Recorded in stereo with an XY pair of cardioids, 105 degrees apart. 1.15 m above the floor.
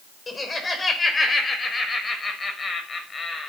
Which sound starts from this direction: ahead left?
Laughter, at 0.3 s.